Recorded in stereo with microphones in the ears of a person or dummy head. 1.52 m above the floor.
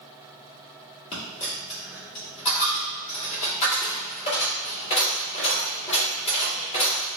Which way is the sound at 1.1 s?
35° left (ahead or behind).